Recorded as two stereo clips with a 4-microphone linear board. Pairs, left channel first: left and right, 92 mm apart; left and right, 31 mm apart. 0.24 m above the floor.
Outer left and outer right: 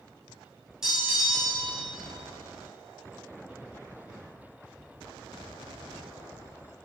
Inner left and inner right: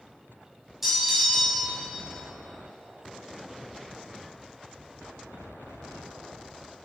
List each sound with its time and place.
0.8 s a bell: 5° right (ahead or behind), 1.9 m